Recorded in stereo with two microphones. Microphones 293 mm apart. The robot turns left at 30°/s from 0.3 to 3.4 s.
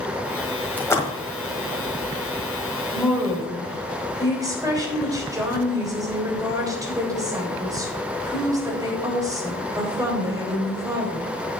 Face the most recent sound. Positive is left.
turn(degrees=-10)  # may be behind; listen again after turning